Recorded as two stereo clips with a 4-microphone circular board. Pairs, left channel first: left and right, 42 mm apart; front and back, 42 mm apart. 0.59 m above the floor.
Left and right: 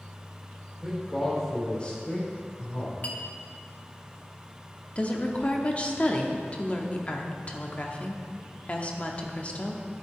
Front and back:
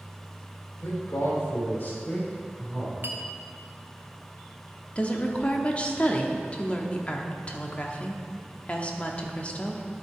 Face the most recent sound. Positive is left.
turn(degrees=45)